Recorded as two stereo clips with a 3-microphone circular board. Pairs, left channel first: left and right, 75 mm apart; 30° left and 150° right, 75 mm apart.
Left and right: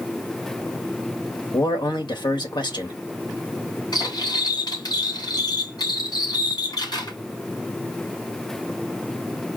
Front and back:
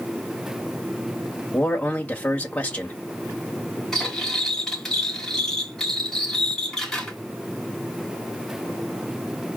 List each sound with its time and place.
1.5 s a man speaking: 100° left, 1.5 m
3.9 s cutlery clinking: 115° left, 3.5 m